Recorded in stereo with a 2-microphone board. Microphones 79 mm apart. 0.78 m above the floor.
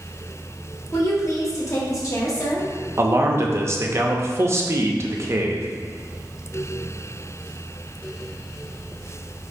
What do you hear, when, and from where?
0.9 s a woman speaking: 40° left (ahead or behind), 1.1 m
3.0 s a man speaking: 35° right (ahead or behind), 0.6 m